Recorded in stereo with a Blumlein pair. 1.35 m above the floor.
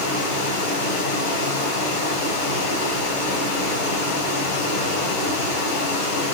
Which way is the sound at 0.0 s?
55° left.